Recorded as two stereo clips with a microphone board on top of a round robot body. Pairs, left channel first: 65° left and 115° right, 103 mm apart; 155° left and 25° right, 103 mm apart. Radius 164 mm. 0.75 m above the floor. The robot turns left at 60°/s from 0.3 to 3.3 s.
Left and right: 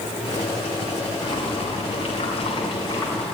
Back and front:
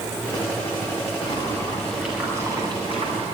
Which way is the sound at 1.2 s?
115° left.